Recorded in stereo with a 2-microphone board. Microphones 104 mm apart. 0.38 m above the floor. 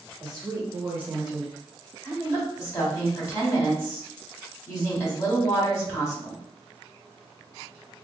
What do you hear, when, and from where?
0.2 s a woman speaking: 45° right (ahead or behind), 1.1 m; by 2.5 s 40° left (ahead or behind), 1.1 m
2.3 s a woman speaking: 25° left (ahead or behind), 1.1 m